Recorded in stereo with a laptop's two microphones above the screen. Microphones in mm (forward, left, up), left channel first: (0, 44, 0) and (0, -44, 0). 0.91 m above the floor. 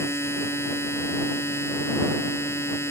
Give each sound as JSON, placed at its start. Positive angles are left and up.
{"t": 0.0, "sound": "a machine running", "side_deg": 30}